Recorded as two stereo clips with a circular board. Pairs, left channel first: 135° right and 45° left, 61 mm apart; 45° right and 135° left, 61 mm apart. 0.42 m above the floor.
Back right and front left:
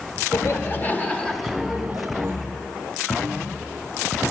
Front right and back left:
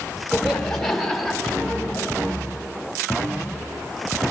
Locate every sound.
0.3 s laughter: 125° right, 1.3 m; by 2.3 s 55° left, 1.1 m